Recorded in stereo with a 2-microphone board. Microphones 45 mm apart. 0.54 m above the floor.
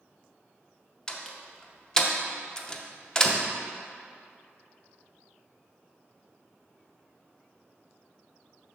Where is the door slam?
15° left (ahead or behind), 0.5 m.